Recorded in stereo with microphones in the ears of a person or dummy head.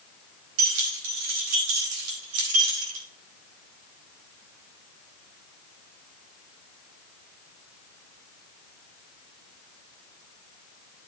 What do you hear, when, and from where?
0.6 s keys jangling: 85° right, 4.5 m; by 3.1 s 75° right (ahead or behind), 3 m